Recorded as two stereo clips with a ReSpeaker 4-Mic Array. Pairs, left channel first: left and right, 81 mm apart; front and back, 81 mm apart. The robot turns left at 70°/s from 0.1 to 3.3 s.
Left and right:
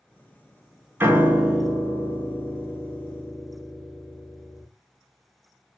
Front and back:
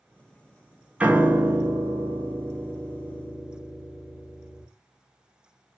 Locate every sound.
1.0 s a piano: 120° right, 0.7 m; by 4.7 s 75° left, 0.7 m